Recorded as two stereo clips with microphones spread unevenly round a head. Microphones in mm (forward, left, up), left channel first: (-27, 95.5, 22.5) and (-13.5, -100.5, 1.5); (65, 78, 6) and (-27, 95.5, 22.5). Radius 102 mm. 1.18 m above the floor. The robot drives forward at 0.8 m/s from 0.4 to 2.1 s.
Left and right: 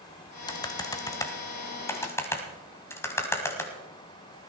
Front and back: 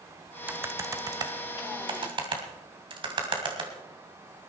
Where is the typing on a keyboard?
135° left, 1.0 m; by 3.7 s 165° left, 1.9 m.